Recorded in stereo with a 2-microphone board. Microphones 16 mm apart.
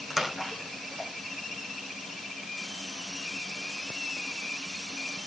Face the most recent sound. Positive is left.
turn(degrees=-20)  # may be behind; listen again after turning